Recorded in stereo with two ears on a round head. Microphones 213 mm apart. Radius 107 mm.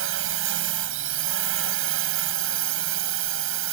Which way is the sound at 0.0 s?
60° right (ahead or behind).